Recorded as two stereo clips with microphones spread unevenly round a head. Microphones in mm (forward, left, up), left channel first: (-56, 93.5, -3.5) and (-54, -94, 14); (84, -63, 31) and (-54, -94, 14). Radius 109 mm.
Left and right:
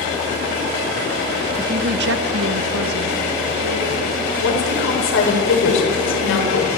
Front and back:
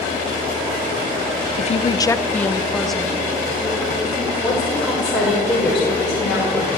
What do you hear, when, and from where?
1.6 s a woman speaking: 5° right, 0.6 m; by 4.3 s 85° right, 3.5 m
4.4 s a woman speaking: 100° left, 5.5 m